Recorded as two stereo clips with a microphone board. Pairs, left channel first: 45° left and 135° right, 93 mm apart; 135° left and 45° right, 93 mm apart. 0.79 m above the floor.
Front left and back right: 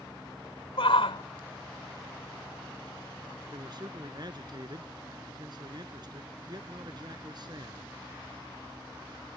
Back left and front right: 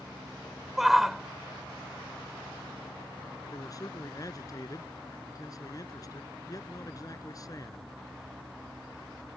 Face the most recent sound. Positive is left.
turn(degrees=-175)